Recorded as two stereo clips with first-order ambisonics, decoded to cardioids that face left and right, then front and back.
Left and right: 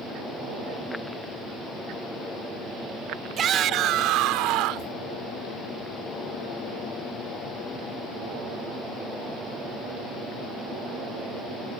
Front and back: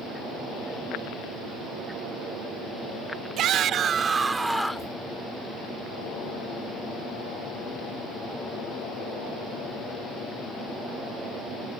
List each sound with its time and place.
3.4 s a shout: 140° right; by 4.9 s 85° right